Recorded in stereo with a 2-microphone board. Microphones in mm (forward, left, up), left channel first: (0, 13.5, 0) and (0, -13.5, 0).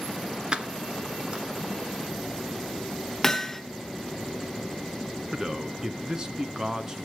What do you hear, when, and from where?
0.5 s keys jangling: 35° right (ahead or behind), 1.4 m
3.2 s hammering: 15° left (ahead or behind), 0.9 m
5.3 s a man speaking: 25° right (ahead or behind), 1.1 m